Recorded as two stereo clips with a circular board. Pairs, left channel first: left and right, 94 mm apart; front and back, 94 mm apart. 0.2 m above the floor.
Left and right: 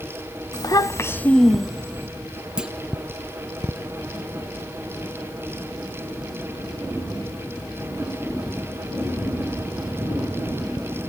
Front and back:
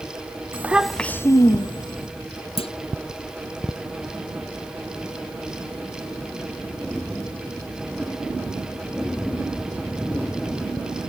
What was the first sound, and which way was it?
A child speaking, 120° left.